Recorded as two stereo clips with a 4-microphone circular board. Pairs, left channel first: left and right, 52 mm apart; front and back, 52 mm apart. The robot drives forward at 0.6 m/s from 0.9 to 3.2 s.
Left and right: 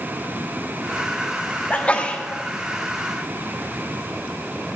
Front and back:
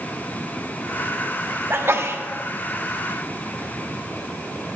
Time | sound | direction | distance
1.7 | a sneeze | 150° left | 1.1 m